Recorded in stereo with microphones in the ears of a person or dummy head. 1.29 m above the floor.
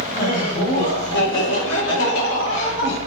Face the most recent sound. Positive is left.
turn(degrees=50)  # may be behind; listen again after turning